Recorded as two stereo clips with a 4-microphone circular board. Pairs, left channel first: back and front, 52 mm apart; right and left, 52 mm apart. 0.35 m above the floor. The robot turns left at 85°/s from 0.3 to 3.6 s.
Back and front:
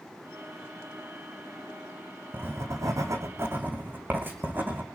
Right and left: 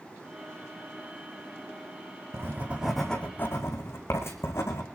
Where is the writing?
55° left, 3.5 m; by 4.8 s 50° right, 3.5 m.